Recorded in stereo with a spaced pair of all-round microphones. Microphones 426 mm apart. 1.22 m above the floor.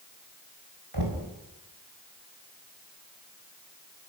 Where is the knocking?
70° right (ahead or behind), 4 m.